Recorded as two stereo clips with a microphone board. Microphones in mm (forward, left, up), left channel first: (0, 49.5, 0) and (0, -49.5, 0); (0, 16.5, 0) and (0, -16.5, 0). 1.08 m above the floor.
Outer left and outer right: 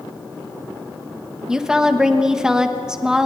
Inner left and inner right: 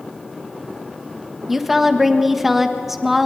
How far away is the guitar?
No guitar in this recording.